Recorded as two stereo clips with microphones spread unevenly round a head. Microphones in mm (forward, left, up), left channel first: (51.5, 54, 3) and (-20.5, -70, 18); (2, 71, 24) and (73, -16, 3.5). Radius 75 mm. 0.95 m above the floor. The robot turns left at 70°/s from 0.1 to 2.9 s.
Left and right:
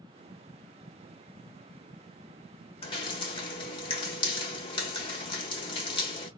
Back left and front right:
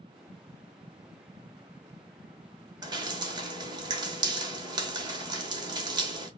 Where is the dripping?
10° left, 1.2 m; by 6.3 s 5° left, 1.2 m.